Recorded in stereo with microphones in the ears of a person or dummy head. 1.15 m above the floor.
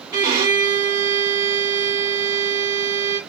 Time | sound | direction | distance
0.1 | a violin | 20° right (ahead or behind) | 1.8 m